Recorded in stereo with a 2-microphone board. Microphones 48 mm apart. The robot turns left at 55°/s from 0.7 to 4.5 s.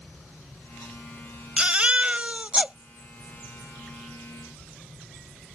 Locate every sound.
1.6 s a baby crying: 25° right (ahead or behind); by 2.8 s 20° right (ahead or behind)